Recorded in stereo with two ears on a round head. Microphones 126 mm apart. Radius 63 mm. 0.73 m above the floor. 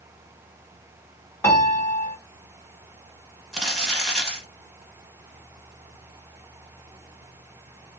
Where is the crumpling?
5° right (ahead or behind), 1.3 m.